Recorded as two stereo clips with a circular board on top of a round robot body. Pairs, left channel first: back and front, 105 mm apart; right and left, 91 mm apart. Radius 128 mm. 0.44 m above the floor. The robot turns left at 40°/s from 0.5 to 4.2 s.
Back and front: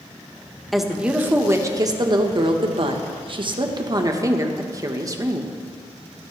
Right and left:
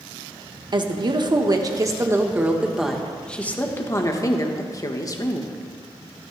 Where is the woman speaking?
90° left, 1.2 m; by 5.5 s 50° right, 1.2 m.